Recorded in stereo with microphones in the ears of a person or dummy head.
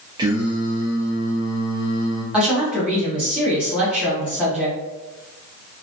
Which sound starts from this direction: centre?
A woman speaking, at 2.3 s.